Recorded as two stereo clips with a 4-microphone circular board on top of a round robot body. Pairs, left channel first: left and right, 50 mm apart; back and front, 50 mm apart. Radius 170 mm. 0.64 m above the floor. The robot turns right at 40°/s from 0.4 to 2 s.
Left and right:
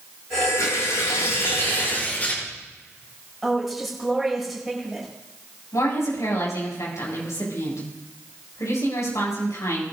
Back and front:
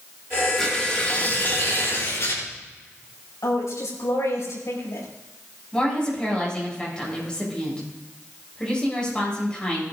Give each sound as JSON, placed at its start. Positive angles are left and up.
{"t": 0.6, "sound": "tearing paper", "azimuth_deg": 90, "distance_m": 7.0}
{"t": 3.4, "sound": "a woman speaking", "azimuth_deg": 180, "distance_m": 7.0}
{"t": 5.7, "sound": "a woman speaking", "azimuth_deg": 105, "distance_m": 7.0}